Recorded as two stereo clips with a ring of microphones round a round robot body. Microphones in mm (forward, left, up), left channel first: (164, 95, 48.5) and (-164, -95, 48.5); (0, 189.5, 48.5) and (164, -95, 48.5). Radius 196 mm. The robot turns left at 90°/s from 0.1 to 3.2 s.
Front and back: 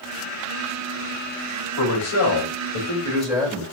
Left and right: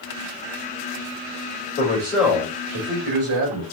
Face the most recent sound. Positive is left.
turn(degrees=-60)